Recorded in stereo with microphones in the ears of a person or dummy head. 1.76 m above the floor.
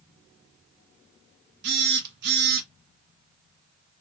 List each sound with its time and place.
1.6 s a phone buzzing: 65° right (ahead or behind), 1.4 m